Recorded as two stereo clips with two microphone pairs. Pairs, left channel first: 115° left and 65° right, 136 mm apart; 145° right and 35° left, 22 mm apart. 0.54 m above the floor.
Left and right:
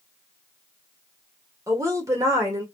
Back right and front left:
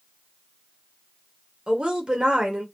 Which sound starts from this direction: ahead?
A woman speaking, at 1.7 s.